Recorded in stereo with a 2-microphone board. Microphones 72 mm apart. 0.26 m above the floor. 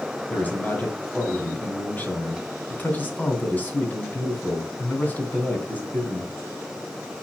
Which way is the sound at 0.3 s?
25° left (ahead or behind).